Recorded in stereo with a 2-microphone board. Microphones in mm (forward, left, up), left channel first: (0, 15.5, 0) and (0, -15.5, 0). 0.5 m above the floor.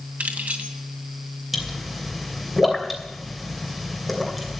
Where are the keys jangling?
65° right (ahead or behind), 2 m.